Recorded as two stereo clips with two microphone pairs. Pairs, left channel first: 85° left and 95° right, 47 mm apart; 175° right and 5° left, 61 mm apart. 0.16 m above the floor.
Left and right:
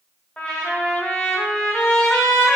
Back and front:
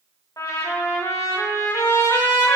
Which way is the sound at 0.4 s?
155° left.